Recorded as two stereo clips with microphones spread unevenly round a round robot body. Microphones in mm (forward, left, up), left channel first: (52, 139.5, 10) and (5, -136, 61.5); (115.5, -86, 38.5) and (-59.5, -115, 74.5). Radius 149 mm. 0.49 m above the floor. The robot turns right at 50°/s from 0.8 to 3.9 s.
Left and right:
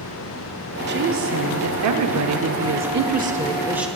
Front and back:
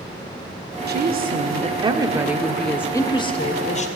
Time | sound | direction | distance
0.9 | a woman speaking | 155° right | 1.5 m